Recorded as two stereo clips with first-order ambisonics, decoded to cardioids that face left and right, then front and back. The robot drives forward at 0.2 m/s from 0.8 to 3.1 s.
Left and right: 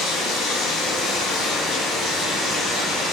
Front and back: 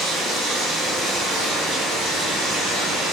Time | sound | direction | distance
0.0 | running water | 130° left | 1.0 m